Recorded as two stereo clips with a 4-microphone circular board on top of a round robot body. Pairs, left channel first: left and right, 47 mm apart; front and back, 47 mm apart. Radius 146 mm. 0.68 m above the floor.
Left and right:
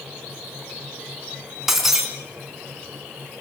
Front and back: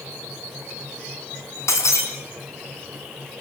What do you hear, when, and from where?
1.7 s breaking glass: 5° right, 4 m